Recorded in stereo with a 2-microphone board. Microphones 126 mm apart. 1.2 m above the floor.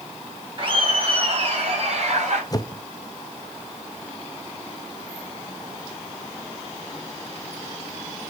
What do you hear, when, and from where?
0.6 s laughter: 45° right (ahead or behind), 5 m; by 2.4 s 60° right (ahead or behind), 5.5 m
2.5 s a whoosh: 30° left (ahead or behind), 0.7 m